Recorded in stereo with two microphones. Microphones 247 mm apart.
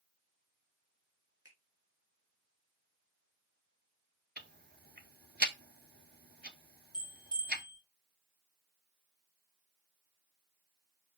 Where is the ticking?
40° right (ahead or behind), 0.8 m.